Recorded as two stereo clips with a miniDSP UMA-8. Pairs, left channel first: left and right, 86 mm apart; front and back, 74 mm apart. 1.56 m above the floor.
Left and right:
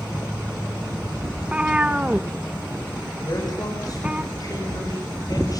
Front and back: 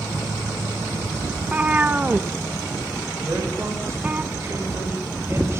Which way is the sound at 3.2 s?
130° left.